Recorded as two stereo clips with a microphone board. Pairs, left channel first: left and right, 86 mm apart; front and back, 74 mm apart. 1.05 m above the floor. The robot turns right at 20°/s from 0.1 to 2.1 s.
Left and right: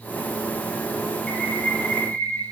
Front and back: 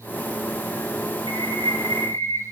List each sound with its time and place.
1.3 s a bird: 5° left, 1.0 m; by 2.4 s 25° left, 1.0 m